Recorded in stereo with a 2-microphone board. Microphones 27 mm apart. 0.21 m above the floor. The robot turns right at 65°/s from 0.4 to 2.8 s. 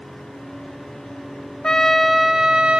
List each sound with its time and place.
1.6 s a trumpet: 145° left, 1.0 m; by 2.8 s 140° right, 1.0 m